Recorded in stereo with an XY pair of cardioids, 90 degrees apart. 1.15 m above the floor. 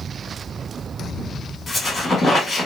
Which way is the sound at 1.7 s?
45° left.